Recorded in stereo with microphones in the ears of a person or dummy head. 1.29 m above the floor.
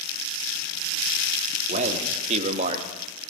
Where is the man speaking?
45° right (ahead or behind), 3.5 m; by 2.9 s 35° right (ahead or behind), 2 m.